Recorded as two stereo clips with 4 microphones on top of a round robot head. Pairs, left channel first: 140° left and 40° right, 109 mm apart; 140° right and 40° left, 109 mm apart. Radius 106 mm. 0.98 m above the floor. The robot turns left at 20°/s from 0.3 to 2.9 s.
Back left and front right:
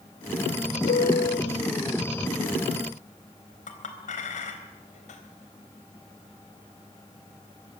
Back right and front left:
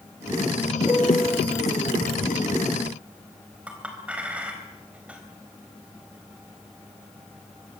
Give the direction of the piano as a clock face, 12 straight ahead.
7 o'clock.